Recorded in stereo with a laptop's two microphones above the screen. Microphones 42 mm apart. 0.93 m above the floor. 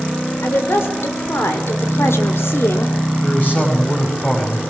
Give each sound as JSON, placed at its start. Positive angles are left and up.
{"t": 0.4, "sound": "a woman speaking", "side_deg": 65, "distance_m": 3.5}
{"t": 3.2, "sound": "a man speaking", "side_deg": 40, "distance_m": 5.0}